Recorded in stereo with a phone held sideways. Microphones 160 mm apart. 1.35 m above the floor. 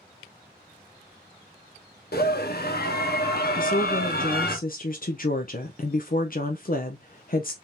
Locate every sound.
2.1 s a scream: 70° left (ahead or behind), 1.1 m
3.6 s a woman speaking: 55° left (ahead or behind), 0.5 m